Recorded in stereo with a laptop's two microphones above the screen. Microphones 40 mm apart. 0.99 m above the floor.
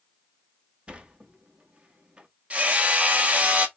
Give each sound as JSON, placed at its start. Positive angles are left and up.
{"t": 0.9, "sound": "a sliding door", "side_deg": -25, "distance_m": 0.6}
{"t": 2.5, "sound": "hammering", "side_deg": -30, "distance_m": 0.7}